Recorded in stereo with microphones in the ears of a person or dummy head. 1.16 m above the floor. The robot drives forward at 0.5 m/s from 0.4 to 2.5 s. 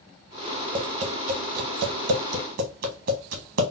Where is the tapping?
35° right (ahead or behind), 0.7 m; by 3.7 s 45° right (ahead or behind), 0.6 m.